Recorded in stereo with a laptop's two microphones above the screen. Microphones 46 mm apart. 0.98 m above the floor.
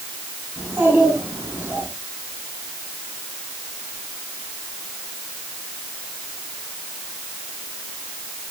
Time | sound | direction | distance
0.6 | a child speaking | 80° right | 8 m